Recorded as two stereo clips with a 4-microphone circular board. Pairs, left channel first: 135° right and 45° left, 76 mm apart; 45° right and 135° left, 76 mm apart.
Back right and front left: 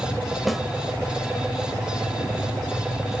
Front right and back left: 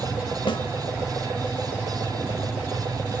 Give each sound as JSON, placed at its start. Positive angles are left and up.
{"t": 0.5, "sound": "a snare drum", "azimuth_deg": -45, "distance_m": 0.8}